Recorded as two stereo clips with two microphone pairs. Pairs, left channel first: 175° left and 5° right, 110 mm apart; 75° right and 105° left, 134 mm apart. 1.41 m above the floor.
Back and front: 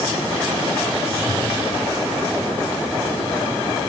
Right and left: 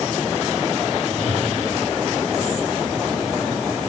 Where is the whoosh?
85° left, 1.8 m.